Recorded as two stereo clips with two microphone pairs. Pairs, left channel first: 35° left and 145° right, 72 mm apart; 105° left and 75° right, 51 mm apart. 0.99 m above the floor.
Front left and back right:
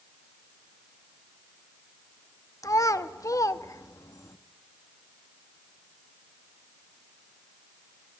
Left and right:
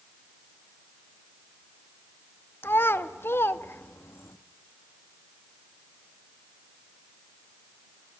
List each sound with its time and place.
2.6 s a child speaking: 70° left, 1.2 m